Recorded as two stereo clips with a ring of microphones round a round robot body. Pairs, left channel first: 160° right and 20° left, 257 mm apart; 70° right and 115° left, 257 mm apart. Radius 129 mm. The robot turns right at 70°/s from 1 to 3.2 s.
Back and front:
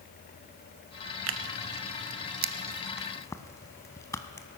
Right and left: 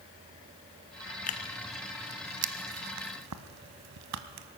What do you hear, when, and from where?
1.3 s tearing paper: 10° right, 0.7 m; by 4.5 s 125° left, 0.7 m